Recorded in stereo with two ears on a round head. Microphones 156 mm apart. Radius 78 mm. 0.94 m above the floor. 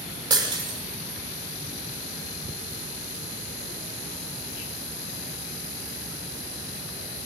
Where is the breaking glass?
25° right (ahead or behind), 7 m.